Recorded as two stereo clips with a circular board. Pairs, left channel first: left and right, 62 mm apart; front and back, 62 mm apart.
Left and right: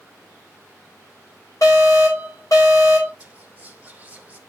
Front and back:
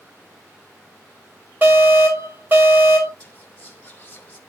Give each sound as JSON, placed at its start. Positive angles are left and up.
{"t": 1.6, "sound": "an alarm", "azimuth_deg": 120, "distance_m": 7.5}
{"t": 3.2, "sound": "whispering", "azimuth_deg": -40, "distance_m": 0.8}